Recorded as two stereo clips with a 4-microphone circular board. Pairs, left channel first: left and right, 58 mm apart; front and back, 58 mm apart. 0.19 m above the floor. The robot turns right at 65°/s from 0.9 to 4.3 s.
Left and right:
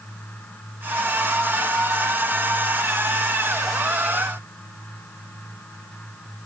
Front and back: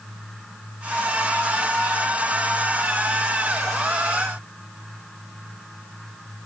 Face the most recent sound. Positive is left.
No sound to turn to.